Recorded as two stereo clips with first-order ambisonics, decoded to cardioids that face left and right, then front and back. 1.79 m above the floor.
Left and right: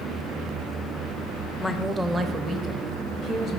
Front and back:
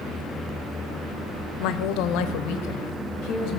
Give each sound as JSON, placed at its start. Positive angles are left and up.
{"t": 1.6, "sound": "a woman speaking", "azimuth_deg": 10, "distance_m": 0.6}